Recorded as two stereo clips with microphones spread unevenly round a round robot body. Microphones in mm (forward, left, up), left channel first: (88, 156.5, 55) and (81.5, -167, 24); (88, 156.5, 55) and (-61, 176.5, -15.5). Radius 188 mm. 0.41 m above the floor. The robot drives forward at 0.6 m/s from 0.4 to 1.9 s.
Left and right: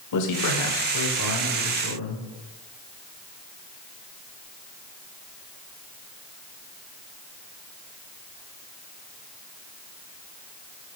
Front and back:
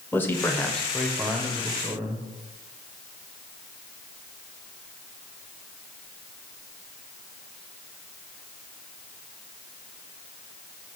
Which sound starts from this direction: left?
A man speaking, at 0.1 s.